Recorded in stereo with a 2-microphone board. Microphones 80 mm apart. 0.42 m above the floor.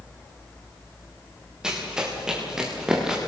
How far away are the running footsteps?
About 6.5 m.